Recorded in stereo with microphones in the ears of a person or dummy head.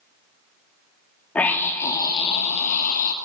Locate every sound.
1.4 s a scream: 20° left (ahead or behind), 2.5 m; by 3.1 s 50° left (ahead or behind), 2.5 m